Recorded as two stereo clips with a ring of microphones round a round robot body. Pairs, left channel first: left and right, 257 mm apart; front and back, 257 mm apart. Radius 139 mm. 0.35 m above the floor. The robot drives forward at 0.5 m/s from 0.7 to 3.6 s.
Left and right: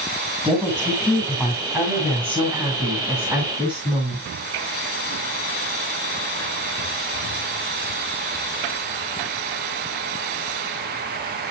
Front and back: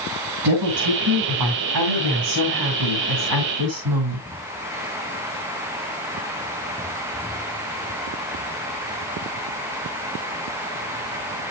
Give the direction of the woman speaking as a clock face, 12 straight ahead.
6 o'clock.